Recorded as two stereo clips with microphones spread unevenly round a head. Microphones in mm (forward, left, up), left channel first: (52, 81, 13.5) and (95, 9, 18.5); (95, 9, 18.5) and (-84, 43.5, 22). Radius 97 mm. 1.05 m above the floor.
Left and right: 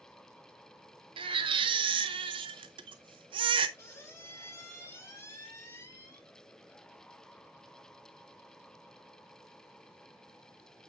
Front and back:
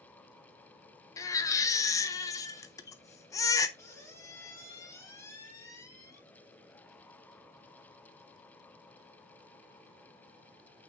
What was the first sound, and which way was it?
A baby crying, 85° right.